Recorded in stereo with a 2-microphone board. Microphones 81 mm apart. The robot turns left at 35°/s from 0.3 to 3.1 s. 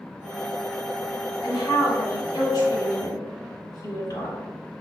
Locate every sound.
1.4 s a woman speaking: 120° left, 1.9 m; by 4.4 s 60° left, 1.9 m